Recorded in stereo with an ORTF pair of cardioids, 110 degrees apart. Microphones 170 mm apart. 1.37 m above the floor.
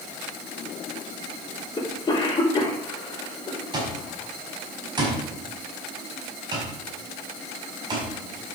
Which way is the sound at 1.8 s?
25° left.